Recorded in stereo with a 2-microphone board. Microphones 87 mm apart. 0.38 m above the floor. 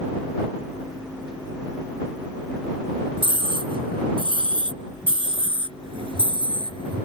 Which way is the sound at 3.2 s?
75° right (ahead or behind).